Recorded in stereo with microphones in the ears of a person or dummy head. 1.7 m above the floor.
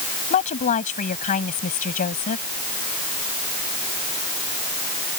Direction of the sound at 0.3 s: 40° left (ahead or behind).